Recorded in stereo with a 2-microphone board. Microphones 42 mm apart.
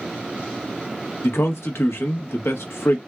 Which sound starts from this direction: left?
A man speaking, at 1.2 s.